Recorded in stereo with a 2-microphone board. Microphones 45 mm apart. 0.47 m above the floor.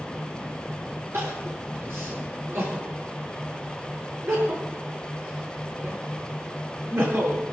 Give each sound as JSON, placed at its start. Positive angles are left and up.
{"t": 1.1, "sound": "crying", "side_deg": -65, "distance_m": 9.5}